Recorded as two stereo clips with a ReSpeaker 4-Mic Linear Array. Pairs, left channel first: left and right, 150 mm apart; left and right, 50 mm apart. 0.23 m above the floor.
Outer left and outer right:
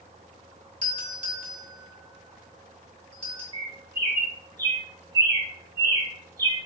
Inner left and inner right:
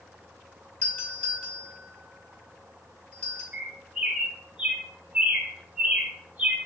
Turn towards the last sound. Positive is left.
turn(degrees=-20)  # may be behind; listen again after turning